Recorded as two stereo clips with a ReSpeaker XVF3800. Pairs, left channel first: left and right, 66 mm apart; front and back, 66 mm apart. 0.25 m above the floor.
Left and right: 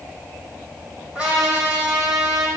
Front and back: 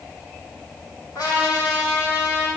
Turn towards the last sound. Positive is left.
turn(degrees=-20)